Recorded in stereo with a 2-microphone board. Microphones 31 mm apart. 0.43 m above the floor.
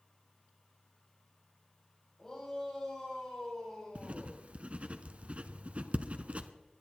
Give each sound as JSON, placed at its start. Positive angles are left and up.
{"t": 2.2, "sound": "a shout", "side_deg": 20, "distance_m": 6.5}
{"t": 4.0, "sound": "writing", "side_deg": -40, "distance_m": 1.0}